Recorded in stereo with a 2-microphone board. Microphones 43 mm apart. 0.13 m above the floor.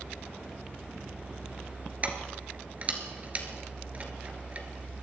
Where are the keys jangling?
35° right (ahead or behind), 1.5 m.